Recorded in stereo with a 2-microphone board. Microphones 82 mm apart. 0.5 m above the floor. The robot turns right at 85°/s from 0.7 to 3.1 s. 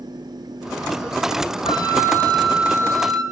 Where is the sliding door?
I don't hear a sliding door.